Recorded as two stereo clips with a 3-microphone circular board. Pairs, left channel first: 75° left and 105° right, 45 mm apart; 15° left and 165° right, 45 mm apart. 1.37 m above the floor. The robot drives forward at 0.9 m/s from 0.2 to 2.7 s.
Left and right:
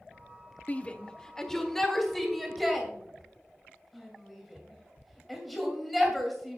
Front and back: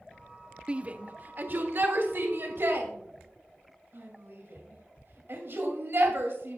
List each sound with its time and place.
0.7 s a shout: 130° left, 0.7 m; by 6.6 s 165° left, 2.5 m